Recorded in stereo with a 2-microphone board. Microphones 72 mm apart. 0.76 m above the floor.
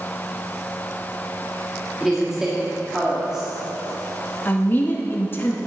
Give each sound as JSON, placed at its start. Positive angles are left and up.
{"t": 2.0, "sound": "a woman speaking", "side_deg": -5, "distance_m": 1.8}
{"t": 4.5, "sound": "a woman speaking", "side_deg": 30, "distance_m": 1.0}